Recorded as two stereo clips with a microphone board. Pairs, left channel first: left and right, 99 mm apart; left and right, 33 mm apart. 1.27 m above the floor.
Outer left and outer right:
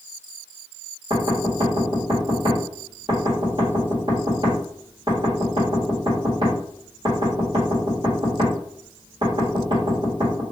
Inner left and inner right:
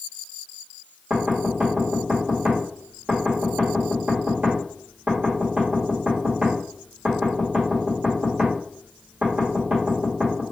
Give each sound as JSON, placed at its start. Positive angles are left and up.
{"t": 1.1, "sound": "knocking", "side_deg": -55, "distance_m": 1.5}